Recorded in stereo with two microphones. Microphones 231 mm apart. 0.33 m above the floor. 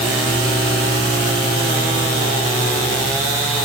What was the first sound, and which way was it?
Only background noise.